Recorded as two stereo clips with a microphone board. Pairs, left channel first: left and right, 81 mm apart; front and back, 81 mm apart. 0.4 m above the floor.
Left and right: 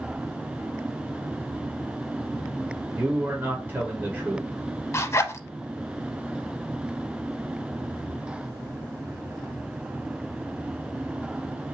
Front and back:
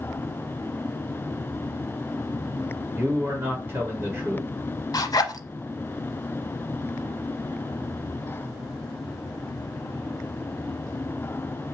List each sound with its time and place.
3.0 s a man speaking: 140° right, 1.7 m
4.9 s a zipper: 35° left, 0.6 m